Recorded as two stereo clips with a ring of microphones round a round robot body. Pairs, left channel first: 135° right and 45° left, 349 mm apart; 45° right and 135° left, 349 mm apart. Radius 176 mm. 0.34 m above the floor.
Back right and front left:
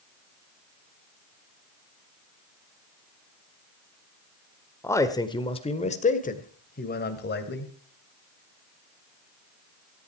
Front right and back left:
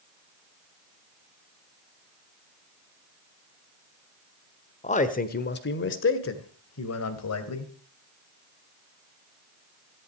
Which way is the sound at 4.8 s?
65° right.